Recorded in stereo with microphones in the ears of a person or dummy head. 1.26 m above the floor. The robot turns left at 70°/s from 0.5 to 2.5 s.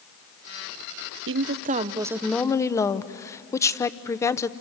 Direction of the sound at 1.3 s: 110° right.